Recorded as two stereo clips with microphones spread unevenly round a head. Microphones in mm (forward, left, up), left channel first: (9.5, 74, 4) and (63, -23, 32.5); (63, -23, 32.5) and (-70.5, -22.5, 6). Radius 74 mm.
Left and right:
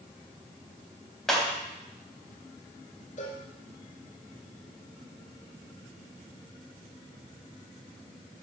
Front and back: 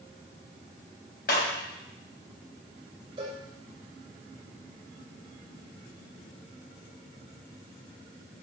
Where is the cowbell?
120° left, 4 m.